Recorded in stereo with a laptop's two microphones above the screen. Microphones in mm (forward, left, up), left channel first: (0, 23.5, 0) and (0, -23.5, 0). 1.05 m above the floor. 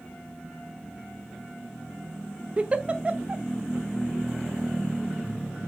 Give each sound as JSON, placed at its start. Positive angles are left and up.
{"t": 2.6, "sound": "a giggle", "side_deg": -25, "distance_m": 0.7}